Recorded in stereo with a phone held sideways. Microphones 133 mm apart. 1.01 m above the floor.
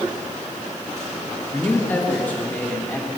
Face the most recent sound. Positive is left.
turn(degrees=15)  # may be behind; listen again after turning